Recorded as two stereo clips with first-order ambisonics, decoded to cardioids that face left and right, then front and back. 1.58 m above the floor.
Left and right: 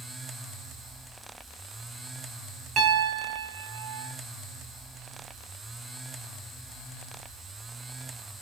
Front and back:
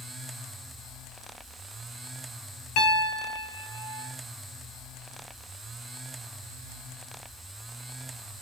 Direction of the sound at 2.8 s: 35° right.